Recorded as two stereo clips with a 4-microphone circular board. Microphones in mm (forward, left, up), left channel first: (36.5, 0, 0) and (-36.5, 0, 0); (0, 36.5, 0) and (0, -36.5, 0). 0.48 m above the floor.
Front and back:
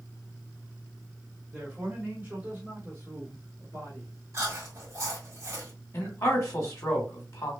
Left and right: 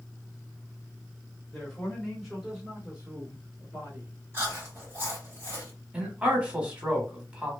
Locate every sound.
1.5 s a man speaking: 150° left, 1.2 m; by 4.1 s 135° right, 1.9 m
4.3 s chewing: 140° right, 2.0 m
5.9 s a man speaking: 20° right, 1.2 m